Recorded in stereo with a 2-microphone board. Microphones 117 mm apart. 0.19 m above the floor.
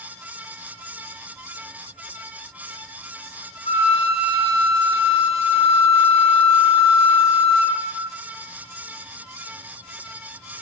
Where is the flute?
60° left (ahead or behind), 1.4 m.